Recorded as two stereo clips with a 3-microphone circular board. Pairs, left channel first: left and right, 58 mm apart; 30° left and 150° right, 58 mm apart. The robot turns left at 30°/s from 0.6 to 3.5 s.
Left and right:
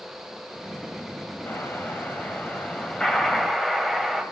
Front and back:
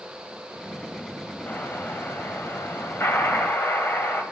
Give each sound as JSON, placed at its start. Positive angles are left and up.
{"t": 1.5, "sound": "an explosion", "azimuth_deg": 65, "distance_m": 1.9}